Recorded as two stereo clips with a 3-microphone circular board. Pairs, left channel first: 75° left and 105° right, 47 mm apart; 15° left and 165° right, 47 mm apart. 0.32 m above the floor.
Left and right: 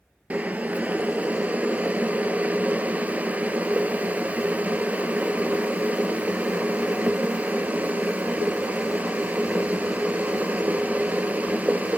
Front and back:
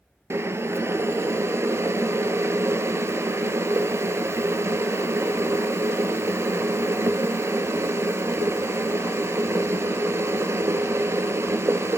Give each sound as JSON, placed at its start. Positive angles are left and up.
{"t": 0.3, "sound": "boiling", "azimuth_deg": -160, "distance_m": 0.8}